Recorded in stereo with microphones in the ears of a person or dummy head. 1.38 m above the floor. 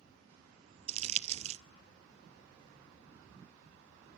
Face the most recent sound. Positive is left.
turn(degrees=-35)  # may be behind; listen again after turning